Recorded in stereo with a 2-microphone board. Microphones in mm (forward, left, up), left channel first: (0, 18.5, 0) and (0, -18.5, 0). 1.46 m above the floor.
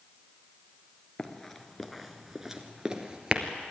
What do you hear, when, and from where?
1.2 s running footsteps: 10° left (ahead or behind), 1.6 m; by 3.4 s 20° right (ahead or behind), 1.9 m